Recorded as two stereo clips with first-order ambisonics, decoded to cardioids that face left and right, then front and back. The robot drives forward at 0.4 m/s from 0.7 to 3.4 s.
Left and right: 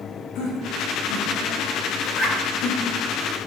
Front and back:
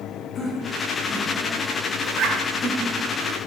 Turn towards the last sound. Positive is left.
turn(degrees=155)